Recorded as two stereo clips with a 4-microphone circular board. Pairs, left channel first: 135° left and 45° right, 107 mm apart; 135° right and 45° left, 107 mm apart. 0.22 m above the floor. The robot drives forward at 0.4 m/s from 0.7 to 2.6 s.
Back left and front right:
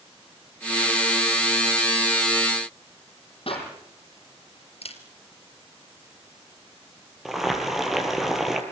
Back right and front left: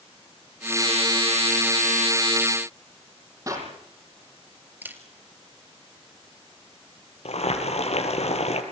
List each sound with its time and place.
3.5 s a clap: 105° left, 7.5 m
4.8 s a camera shutter: 120° left, 3.5 m
7.2 s boiling: 135° right, 4.5 m